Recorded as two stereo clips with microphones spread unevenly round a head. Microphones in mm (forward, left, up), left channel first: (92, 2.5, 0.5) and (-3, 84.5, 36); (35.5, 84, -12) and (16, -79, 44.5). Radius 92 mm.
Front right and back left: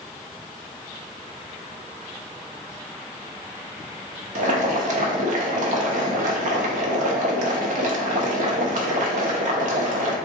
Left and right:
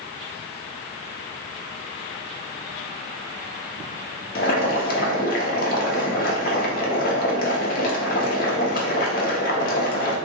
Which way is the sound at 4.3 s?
135° left.